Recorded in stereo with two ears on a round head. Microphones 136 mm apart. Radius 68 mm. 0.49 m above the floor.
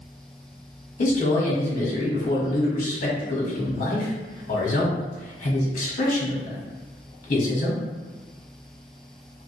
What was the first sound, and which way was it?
A man speaking, 50° left (ahead or behind).